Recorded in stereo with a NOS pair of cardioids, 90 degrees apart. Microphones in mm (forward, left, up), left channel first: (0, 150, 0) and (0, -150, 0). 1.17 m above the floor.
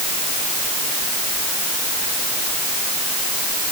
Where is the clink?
I don't hear a clink.